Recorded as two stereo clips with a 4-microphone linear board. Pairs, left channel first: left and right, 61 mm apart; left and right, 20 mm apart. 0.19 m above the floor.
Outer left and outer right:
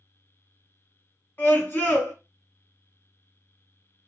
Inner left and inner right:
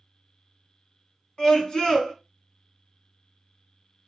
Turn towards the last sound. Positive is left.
turn(degrees=35)  # may be behind; listen again after turning